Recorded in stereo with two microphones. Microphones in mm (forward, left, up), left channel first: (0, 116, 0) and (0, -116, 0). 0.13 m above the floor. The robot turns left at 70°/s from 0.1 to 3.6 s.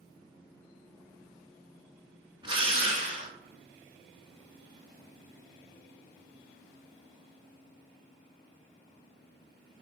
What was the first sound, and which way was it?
A drill, 20° right (ahead or behind).